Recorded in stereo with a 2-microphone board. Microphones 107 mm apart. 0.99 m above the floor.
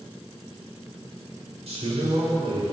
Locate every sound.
1.7 s a man speaking: 80° right, 4 m